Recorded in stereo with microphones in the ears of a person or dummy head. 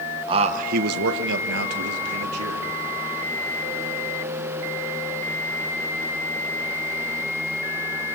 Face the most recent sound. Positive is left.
turn(degrees=-80)